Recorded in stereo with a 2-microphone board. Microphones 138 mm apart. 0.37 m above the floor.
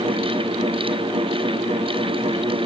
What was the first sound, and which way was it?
Only background noise.